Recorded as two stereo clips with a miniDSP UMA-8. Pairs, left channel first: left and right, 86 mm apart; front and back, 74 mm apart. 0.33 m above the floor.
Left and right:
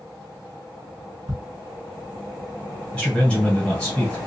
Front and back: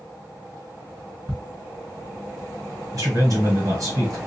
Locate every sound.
1.3 s ticking: 115° right, 1.8 m
2.9 s a man speaking: 170° left, 1.7 m